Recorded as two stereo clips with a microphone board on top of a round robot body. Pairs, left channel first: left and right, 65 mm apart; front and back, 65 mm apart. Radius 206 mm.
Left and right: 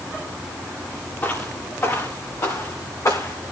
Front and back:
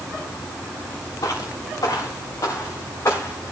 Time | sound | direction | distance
1.2 | footsteps | 30° left | 4 m